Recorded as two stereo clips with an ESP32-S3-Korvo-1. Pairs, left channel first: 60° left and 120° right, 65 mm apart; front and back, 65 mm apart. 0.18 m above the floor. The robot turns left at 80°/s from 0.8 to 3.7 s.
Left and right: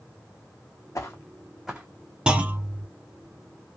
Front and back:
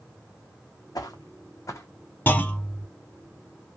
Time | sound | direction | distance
0.9 | footsteps | 20° left | 0.6 m
2.3 | a clunk | 50° right | 0.6 m